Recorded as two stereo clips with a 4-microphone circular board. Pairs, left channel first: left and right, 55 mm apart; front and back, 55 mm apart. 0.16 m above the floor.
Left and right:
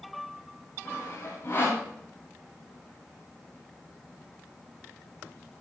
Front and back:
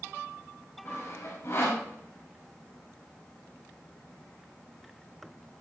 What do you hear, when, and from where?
0.8 s sawing: 35° left, 6.5 m